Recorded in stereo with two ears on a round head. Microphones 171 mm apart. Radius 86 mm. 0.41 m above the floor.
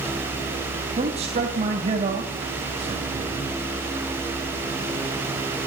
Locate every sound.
1.0 s a man speaking: 35° right (ahead or behind), 3 m